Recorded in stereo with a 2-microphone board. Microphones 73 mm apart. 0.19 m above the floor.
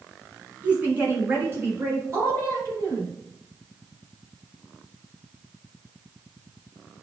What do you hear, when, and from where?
0.6 s a woman speaking: 25° right (ahead or behind), 1.6 m; by 3.1 s 45° right (ahead or behind), 2.5 m